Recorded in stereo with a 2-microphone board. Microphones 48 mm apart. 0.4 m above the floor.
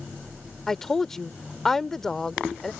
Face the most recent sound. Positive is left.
turn(degrees=10)  # may be behind; listen again after turning